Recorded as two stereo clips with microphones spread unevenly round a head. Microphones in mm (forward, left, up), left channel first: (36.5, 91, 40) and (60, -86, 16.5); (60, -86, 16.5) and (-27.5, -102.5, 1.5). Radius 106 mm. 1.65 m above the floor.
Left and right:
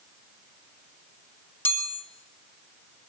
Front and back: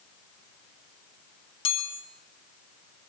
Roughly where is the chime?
Ahead.